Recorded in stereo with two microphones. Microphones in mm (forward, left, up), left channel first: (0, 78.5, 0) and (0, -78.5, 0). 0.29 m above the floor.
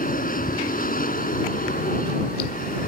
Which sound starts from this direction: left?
An aircraft, at 0.0 s.